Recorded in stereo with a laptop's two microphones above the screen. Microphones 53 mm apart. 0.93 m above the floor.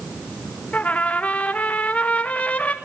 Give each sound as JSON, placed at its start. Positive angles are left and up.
{"t": 0.7, "sound": "a trumpet", "side_deg": 25, "distance_m": 1.2}